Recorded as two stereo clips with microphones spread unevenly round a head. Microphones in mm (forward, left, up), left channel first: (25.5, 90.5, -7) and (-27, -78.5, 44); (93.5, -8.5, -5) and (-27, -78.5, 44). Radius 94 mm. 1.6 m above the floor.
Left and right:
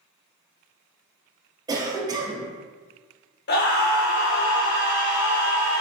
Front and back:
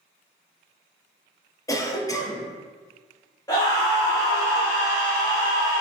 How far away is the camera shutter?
No camera shutter in this recording.